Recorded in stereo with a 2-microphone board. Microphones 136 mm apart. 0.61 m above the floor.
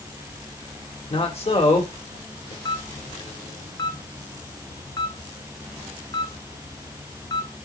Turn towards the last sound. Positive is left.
turn(degrees=30)  # may be behind; listen again after turning